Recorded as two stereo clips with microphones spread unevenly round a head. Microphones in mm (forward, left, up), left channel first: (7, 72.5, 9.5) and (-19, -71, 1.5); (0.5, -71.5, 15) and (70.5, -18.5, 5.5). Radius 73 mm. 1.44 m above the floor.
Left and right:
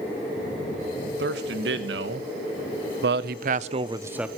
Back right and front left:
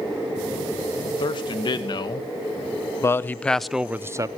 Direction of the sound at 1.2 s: 110° right.